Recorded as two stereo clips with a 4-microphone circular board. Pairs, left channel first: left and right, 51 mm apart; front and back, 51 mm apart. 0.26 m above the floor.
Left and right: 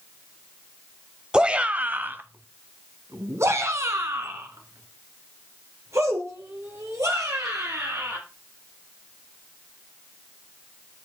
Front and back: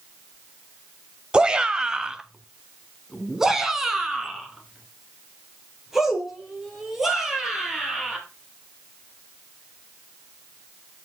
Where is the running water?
No running water in this recording.